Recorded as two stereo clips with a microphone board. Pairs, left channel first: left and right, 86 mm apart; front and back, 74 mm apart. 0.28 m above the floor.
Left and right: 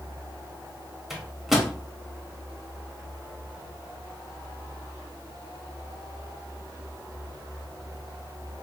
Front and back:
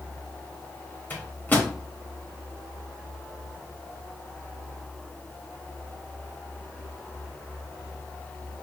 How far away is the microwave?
About 0.7 m.